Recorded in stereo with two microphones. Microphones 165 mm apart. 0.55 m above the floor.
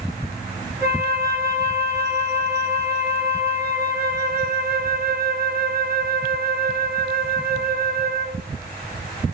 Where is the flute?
60° right (ahead or behind), 5 m.